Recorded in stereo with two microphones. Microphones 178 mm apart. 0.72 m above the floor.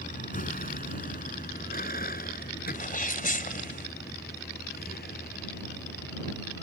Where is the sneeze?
50° left (ahead or behind).